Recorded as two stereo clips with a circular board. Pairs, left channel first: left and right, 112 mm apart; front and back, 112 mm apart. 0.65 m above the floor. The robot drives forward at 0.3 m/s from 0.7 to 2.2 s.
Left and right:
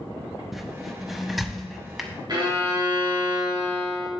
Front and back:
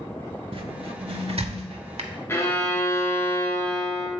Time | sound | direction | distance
0.5 | a squeak | 175° right | 0.6 m
2.3 | a violin | 60° right | 1.5 m